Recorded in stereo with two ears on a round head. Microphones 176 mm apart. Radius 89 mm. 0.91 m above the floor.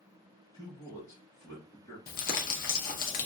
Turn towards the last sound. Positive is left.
turn(degrees=45)  # may be behind; listen again after turning